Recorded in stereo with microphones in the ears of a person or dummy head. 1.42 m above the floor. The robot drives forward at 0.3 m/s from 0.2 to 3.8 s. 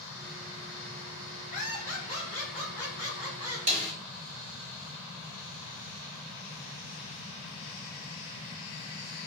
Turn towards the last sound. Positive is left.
turn(degrees=-40)  # may be behind; listen again after turning